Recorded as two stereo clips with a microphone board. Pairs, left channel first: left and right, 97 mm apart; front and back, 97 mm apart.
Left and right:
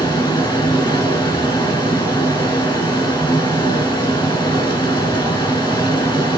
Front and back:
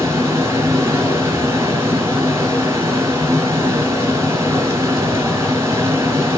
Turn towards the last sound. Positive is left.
turn(degrees=120)